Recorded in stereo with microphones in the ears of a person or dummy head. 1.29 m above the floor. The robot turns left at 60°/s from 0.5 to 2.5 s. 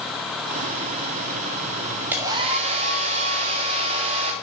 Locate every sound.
2.1 s a hair dryer: 10° right (ahead or behind), 1.6 m; by 4.3 s 35° right (ahead or behind), 1.6 m